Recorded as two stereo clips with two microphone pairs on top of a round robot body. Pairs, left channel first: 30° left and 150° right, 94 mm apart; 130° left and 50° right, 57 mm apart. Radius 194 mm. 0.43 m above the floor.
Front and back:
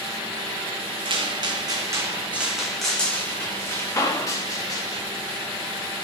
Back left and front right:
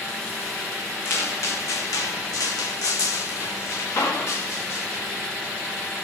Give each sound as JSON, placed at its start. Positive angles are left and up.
{"t": 1.1, "sound": "footsteps", "azimuth_deg": 180, "distance_m": 1.8}